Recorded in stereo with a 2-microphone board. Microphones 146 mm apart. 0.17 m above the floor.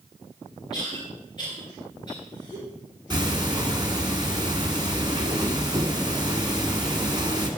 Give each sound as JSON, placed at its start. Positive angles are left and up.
{"t": 0.7, "sound": "a cough", "side_deg": 30, "distance_m": 3.5}
{"t": 3.1, "sound": "ticking", "side_deg": -30, "distance_m": 1.3}